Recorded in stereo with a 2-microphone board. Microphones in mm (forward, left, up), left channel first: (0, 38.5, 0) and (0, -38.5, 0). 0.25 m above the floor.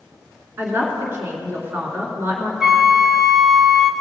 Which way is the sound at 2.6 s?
5° right (ahead or behind).